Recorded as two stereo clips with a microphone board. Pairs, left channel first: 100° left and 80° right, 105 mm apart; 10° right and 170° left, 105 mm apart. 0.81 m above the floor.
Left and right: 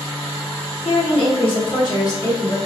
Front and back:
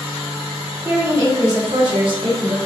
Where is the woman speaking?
105° left, 1.8 m; by 2.6 s 150° left, 1.8 m.